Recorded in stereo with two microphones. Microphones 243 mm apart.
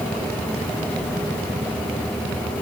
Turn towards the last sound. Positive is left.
No sound to turn to.